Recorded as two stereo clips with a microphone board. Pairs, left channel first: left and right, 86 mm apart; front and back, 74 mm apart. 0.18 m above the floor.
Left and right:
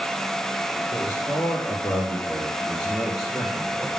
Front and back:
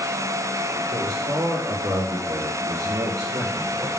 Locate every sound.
0.9 s a man speaking: 150° left, 3 m; by 3.9 s 165° right, 2.5 m